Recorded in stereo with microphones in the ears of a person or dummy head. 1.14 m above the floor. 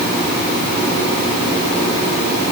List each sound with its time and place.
Only background noise.